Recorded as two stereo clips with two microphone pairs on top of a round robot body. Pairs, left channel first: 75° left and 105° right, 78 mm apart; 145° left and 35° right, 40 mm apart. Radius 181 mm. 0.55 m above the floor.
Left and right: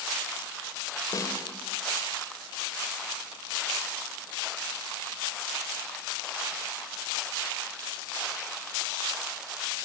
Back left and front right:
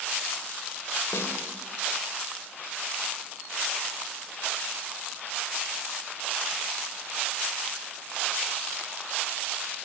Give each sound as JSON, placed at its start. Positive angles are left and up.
{"t": 1.1, "sound": "a snare drum", "azimuth_deg": 125, "distance_m": 4.0}